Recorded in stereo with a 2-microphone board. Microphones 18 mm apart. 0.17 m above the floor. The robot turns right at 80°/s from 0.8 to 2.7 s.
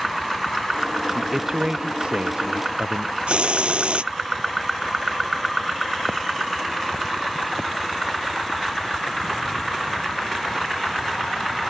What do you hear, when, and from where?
1.1 s a man speaking: 175° left; by 3.2 s 60° right
3.3 s a hiss: 75° right (ahead or behind)